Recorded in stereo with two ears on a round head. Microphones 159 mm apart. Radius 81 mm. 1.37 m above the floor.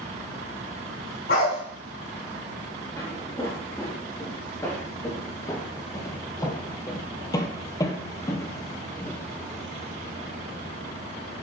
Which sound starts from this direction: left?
A dog barking, at 1.3 s.